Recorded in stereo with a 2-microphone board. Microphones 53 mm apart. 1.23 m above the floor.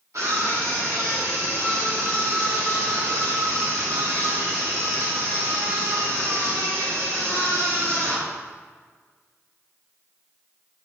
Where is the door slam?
I don't hear a door slam.